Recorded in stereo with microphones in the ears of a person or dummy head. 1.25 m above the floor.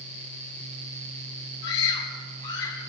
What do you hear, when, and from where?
1.6 s a scream: 70° left (ahead or behind), 6.5 m